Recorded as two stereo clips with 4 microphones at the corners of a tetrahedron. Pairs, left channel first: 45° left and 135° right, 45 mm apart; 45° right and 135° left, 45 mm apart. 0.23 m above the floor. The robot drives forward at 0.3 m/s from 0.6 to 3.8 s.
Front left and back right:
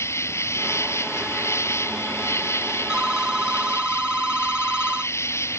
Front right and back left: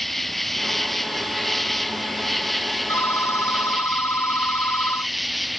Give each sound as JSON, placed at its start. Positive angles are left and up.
{"t": 0.0, "sound": "an insect", "azimuth_deg": 40}
{"t": 2.9, "sound": "a phone ringing", "azimuth_deg": -60}